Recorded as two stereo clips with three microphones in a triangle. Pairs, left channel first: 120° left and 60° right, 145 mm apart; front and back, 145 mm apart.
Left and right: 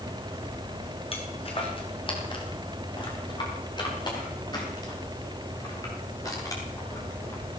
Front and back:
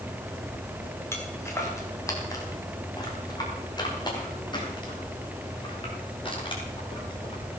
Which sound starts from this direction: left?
Footsteps, at 1.1 s.